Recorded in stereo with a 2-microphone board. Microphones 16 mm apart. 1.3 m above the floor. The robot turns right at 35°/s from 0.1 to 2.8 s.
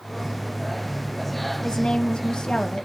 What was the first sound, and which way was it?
A woman speaking, 90° left.